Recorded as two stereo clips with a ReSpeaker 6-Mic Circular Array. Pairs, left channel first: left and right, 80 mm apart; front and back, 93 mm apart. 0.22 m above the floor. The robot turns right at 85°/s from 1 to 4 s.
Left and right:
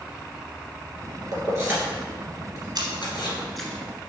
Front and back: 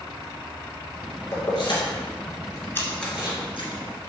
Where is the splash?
65° right, 1.4 m; by 4.0 s 40° left, 1.4 m.